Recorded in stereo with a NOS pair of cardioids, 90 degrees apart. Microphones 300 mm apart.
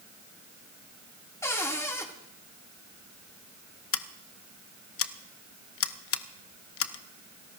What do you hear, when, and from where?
1.4 s a cupboard door: 10° left, 2.5 m
3.9 s scissors: 50° left, 0.8 m